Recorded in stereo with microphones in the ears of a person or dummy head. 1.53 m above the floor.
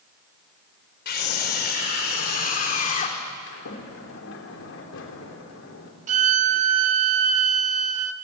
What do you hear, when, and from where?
1.1 s a scream: 65° left (ahead or behind), 5 m; by 3.2 s 50° left (ahead or behind), 3.5 m
3.5 s a sliding door: 70° left (ahead or behind), 3.5 m
6.1 s a violin: 50° right (ahead or behind), 1.2 m